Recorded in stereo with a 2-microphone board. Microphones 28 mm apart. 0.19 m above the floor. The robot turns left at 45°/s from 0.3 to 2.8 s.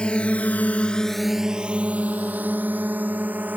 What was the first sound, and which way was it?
A drone, 35° left (ahead or behind).